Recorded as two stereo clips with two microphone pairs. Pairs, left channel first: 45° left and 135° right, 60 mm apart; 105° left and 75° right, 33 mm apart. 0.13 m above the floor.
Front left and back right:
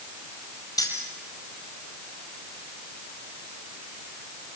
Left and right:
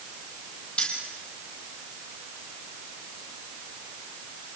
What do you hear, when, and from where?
0.8 s keys jangling: 50° left, 3.5 m